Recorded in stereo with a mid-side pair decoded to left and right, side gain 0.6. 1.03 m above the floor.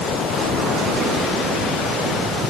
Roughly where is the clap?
I don't hear a clap.